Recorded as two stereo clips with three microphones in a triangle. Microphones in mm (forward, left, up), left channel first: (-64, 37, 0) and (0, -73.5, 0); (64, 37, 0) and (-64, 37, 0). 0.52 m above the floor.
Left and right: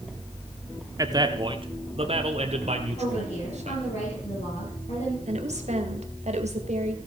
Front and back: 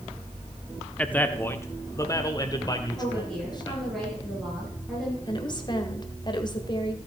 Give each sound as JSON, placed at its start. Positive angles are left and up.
{"t": 1.0, "sound": "a man speaking", "azimuth_deg": -70, "distance_m": 1.1}
{"t": 3.0, "sound": "a woman speaking", "azimuth_deg": 85, "distance_m": 7.5}
{"t": 5.3, "sound": "a woman speaking", "azimuth_deg": -50, "distance_m": 1.8}